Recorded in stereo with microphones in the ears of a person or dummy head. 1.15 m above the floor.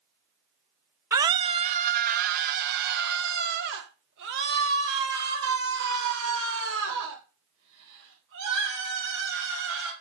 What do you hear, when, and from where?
1.1 s a scream: 15° right (ahead or behind), 0.6 m; by 9.9 s 70° right (ahead or behind), 5.5 m